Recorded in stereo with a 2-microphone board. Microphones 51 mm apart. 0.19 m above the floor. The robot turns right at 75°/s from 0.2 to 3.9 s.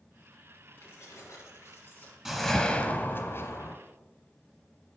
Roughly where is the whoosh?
Ahead.